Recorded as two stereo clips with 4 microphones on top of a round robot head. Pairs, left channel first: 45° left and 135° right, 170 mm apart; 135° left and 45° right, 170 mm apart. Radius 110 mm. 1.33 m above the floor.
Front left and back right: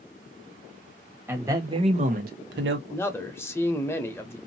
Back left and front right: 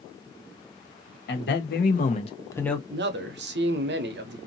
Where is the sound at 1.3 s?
150° left, 1.4 m; by 2.8 s 135° right, 1.0 m.